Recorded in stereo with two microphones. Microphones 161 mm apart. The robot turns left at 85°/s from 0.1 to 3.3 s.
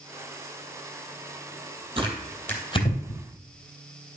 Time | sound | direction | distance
2.0 | tearing paper | 35° right (ahead or behind) | 3 m